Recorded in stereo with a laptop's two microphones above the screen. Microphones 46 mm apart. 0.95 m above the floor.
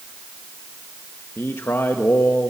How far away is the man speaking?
About 0.7 m.